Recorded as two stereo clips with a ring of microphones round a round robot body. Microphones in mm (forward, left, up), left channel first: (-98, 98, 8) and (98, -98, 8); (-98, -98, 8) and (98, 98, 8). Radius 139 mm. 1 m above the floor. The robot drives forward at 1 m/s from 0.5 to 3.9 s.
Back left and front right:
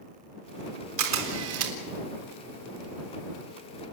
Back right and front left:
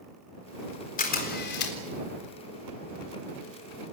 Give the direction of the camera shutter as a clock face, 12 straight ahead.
2 o'clock.